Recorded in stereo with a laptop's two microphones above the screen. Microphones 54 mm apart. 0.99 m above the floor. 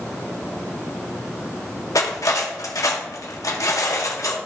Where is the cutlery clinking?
90° left, 1.2 m.